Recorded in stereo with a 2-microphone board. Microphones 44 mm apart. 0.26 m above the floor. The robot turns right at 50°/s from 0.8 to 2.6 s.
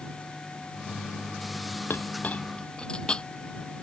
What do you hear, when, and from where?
1.9 s a clink: 55° left (ahead or behind); by 3.2 s 20° left (ahead or behind)